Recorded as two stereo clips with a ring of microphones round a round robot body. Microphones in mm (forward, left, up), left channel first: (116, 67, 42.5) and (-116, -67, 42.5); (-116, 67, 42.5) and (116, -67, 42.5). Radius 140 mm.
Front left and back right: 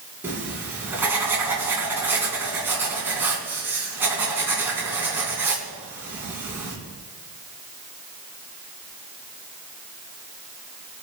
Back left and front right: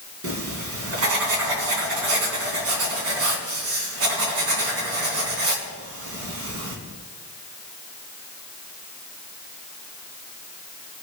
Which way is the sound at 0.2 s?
65° right.